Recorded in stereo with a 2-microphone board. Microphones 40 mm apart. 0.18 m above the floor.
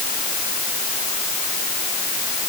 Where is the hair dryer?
I don't hear a hair dryer.